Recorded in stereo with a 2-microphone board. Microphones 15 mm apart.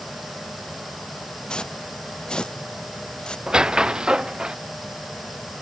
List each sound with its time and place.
1.5 s footsteps: 75° left (ahead or behind)
3.5 s a squeak: 65° right (ahead or behind)